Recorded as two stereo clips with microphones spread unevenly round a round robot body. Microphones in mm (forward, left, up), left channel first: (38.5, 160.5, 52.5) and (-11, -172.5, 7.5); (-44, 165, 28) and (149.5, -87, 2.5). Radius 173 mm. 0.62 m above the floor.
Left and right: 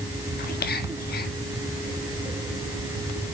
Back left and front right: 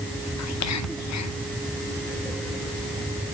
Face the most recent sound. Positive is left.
turn(degrees=145)